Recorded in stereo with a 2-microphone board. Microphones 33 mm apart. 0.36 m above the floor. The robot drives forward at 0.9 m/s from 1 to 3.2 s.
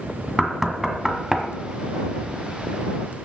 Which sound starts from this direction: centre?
Knocking, at 0.4 s.